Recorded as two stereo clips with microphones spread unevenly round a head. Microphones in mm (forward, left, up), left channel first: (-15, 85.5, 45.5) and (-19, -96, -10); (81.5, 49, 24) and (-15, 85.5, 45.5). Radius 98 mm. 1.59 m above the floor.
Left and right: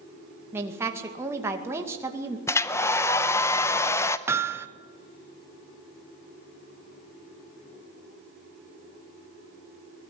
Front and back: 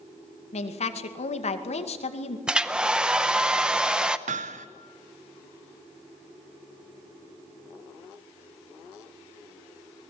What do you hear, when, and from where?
0.5 s a woman speaking: 15° right, 2 m
2.5 s a hair dryer: 105° left, 0.7 m
4.3 s hammering: 170° right, 1.0 m